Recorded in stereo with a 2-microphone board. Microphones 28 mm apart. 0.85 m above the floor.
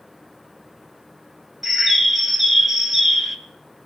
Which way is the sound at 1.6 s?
Centre (ahead or behind).